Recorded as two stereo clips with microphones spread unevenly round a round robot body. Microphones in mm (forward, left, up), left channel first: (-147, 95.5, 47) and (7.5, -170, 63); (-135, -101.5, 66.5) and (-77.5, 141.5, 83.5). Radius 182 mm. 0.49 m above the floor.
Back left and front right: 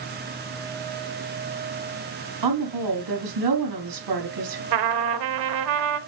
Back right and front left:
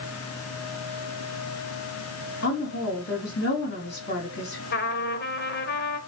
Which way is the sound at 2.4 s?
50° right.